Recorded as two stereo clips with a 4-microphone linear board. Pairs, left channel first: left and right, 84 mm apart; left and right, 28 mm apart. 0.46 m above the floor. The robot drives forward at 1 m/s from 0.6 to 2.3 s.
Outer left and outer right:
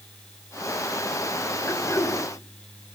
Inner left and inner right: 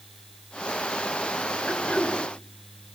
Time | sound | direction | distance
1.7 | throat clearing | 35° left (ahead or behind) | 4.5 m